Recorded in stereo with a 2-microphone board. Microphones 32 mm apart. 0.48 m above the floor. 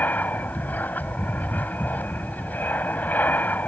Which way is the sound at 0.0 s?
60° left (ahead or behind).